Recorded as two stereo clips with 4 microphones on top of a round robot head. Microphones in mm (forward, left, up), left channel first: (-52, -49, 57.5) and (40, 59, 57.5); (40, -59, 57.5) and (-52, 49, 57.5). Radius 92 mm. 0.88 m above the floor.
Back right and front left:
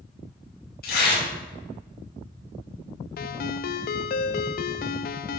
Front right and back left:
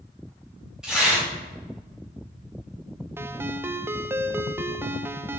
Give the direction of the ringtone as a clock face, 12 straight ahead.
5 o'clock.